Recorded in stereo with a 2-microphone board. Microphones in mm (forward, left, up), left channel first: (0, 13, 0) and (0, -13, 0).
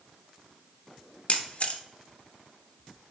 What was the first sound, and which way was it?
A camera shutter, 50° left (ahead or behind).